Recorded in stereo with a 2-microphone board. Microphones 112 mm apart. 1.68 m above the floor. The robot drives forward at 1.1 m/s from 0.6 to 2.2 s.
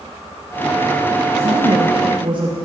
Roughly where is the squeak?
No squeak in this recording.